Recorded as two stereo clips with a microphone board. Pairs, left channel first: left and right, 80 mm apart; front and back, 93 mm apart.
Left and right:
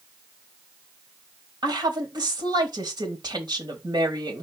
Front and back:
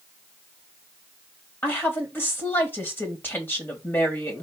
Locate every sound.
1.6 s a woman speaking: 65° right, 3 m